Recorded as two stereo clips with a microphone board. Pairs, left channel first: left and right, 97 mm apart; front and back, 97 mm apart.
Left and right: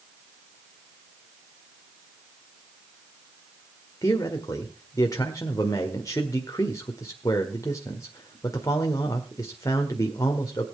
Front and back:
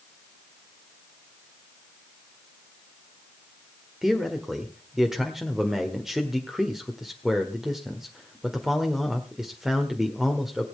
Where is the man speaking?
95° left, 1.5 m.